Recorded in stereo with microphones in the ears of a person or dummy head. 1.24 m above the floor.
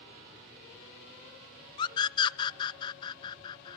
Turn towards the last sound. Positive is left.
turn(degrees=20)  # may be behind; listen again after turning